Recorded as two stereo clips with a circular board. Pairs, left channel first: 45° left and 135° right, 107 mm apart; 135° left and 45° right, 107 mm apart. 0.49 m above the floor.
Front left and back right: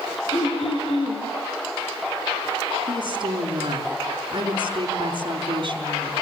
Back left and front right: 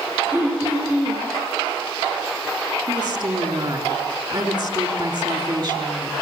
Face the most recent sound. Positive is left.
turn(degrees=-90)